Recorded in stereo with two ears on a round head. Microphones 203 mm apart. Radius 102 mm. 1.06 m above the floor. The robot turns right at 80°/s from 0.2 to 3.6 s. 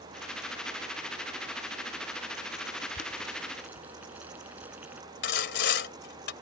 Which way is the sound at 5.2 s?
50° left (ahead or behind).